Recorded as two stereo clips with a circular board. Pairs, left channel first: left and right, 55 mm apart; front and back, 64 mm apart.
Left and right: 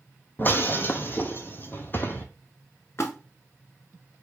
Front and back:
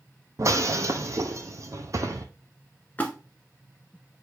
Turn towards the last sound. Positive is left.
turn(degrees=60)